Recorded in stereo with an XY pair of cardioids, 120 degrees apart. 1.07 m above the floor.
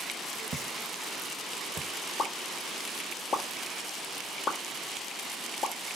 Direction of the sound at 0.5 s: 40° right.